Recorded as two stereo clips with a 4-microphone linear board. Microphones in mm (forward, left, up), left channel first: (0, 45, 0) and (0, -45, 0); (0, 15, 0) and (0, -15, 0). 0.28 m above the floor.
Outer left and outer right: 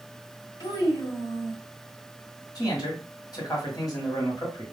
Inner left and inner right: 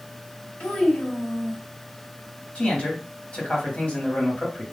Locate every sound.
0.6 s a child speaking: 50° left (ahead or behind), 1.5 m
2.5 s a man speaking: 45° left (ahead or behind), 1.4 m